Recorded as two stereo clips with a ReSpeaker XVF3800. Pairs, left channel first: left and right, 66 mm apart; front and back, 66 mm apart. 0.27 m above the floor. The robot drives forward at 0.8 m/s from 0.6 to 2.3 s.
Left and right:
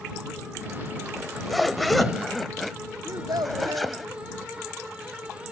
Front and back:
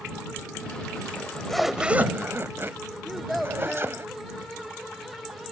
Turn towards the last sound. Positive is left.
turn(degrees=-90)